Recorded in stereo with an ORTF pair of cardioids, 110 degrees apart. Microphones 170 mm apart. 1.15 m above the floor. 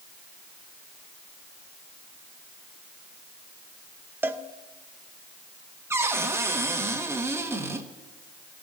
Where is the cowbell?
15° right, 0.8 m.